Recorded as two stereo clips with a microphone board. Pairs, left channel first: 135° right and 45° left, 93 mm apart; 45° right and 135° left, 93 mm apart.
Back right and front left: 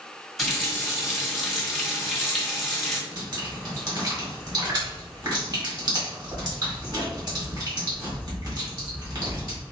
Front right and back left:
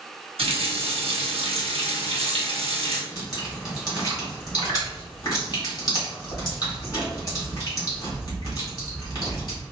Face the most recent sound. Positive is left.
turn(degrees=5)